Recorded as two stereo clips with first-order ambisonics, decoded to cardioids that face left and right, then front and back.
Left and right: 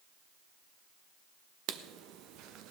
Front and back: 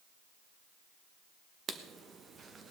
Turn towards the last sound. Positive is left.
turn(degrees=-115)